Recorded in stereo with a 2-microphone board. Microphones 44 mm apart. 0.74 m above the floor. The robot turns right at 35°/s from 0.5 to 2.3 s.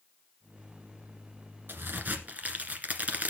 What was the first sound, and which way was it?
A crack, 55° right (ahead or behind).